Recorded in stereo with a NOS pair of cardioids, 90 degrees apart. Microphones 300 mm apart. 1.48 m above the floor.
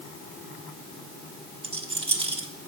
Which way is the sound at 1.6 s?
20° right.